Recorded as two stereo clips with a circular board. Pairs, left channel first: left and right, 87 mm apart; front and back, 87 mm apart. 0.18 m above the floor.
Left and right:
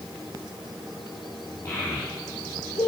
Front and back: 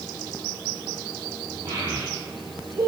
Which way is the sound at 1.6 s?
150° left.